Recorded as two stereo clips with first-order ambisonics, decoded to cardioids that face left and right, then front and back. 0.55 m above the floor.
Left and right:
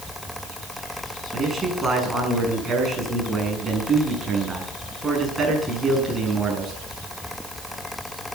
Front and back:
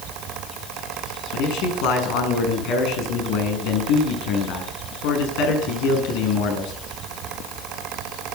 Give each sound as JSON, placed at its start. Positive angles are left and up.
{"t": 1.3, "sound": "a man speaking", "azimuth_deg": -10, "distance_m": 6.5}